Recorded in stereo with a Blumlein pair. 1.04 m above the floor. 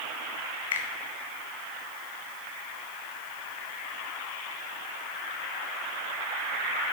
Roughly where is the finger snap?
Ahead left.